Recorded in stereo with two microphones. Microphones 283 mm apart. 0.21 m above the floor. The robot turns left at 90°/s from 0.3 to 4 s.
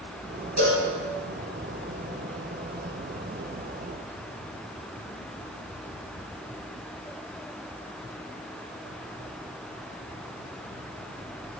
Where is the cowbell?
70° right (ahead or behind), 4.5 m; by 0.9 s 60° right (ahead or behind), 4.5 m.